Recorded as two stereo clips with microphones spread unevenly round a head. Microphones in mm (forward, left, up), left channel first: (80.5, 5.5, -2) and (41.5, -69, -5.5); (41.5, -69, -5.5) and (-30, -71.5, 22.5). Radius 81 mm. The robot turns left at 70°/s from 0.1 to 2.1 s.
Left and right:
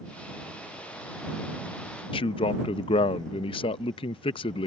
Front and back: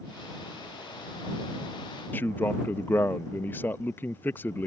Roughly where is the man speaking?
Ahead left.